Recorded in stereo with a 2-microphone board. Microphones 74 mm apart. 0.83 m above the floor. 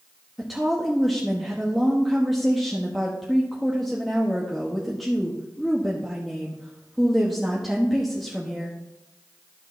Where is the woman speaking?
Centre (ahead or behind), 1.1 m.